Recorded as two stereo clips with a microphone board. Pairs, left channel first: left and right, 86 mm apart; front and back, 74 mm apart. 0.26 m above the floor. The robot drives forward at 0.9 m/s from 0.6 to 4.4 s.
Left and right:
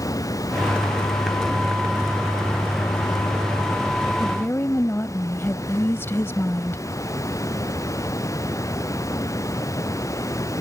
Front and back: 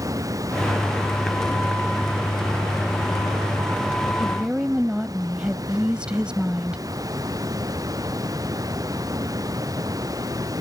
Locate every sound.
0.0 s running water: 140° left; by 10.6 s 145° left
4.2 s a woman speaking: 100° left; by 6.8 s 115° left